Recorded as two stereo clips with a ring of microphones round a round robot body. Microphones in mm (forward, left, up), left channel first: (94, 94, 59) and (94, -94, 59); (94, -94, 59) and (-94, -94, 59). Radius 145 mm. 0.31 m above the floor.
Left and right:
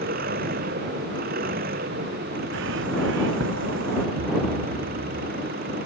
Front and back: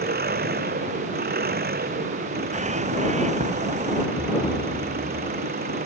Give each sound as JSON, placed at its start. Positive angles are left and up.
{"t": 0.0, "sound": "an engine running", "azimuth_deg": -145}
{"t": 2.5, "sound": "a bird", "azimuth_deg": -130}
{"t": 4.2, "sound": "a thud", "azimuth_deg": -105}